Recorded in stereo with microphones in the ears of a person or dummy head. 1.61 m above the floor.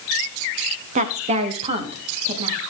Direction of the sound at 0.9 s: 40° right (ahead or behind).